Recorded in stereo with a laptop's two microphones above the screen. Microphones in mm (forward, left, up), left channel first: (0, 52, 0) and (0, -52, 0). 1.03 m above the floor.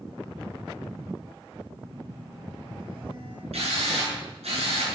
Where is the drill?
75° right (ahead or behind), 8.5 m.